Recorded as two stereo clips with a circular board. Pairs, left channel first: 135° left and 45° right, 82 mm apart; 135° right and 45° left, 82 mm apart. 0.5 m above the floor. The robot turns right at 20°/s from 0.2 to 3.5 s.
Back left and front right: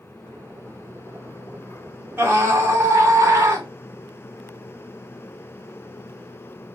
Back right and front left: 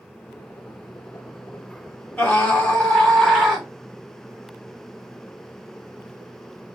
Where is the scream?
75° right, 1.5 m; by 3.7 s 50° right, 1.5 m.